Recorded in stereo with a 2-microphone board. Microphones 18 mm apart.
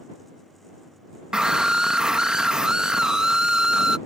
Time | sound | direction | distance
1.3 | a scream | 45° right (ahead or behind) | ?